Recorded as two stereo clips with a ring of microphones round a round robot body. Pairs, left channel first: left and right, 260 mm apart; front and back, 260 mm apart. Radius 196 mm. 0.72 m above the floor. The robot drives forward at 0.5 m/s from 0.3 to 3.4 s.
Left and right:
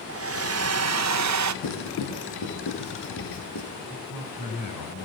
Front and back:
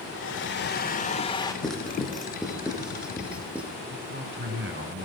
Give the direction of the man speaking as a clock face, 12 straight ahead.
8 o'clock.